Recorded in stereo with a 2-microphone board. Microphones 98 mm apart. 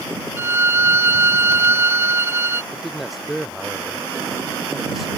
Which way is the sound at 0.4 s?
25° right (ahead or behind).